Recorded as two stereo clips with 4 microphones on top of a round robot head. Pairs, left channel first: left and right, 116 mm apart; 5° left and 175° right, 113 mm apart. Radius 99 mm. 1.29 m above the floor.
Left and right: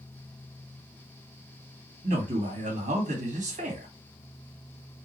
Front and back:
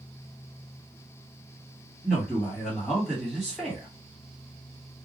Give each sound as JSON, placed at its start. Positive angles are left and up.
{"t": 2.0, "sound": "a man speaking", "azimuth_deg": -80, "distance_m": 2.0}